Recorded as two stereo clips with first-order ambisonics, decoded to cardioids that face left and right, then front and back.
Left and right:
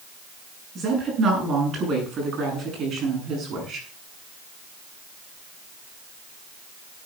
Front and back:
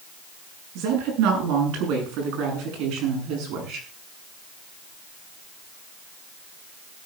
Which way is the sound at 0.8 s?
155° right.